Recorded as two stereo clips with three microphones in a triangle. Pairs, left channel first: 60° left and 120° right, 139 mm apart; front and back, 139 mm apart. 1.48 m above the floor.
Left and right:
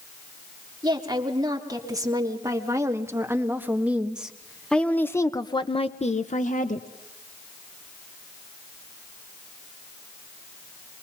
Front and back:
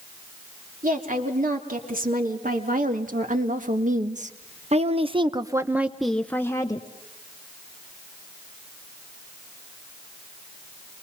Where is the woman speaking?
Straight behind, 3 m; by 6.9 s 60° left, 1.1 m.